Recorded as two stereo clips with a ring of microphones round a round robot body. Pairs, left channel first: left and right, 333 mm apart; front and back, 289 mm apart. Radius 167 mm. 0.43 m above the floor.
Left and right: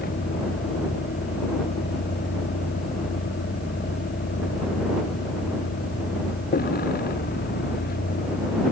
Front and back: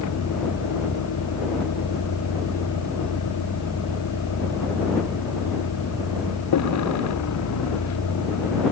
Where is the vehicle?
25° left.